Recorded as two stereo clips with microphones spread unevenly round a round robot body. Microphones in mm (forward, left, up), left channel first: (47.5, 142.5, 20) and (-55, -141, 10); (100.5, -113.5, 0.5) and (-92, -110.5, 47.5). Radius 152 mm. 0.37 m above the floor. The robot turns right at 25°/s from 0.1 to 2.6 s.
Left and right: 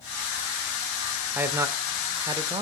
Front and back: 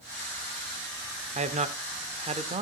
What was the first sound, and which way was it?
A man speaking, 175° right.